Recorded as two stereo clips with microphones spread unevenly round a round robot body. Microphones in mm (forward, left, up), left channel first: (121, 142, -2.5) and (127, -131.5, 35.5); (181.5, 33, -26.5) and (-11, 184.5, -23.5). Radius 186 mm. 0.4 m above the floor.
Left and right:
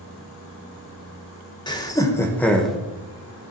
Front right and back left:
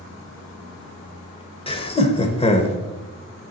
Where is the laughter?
25° left, 1.5 m; by 2.8 s 10° left, 1.1 m.